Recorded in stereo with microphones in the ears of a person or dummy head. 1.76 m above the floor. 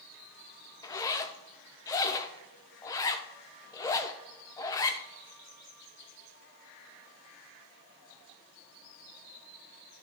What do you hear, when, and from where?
0.8 s a zipper: 20° left (ahead or behind), 0.6 m